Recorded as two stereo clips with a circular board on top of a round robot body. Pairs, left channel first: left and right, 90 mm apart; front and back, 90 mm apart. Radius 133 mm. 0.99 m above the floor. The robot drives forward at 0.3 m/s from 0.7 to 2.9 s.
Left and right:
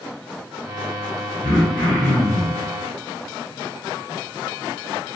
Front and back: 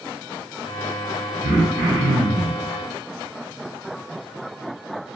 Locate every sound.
1.4 s throat clearing: 140° left, 1.3 m; by 2.6 s 150° left, 1.5 m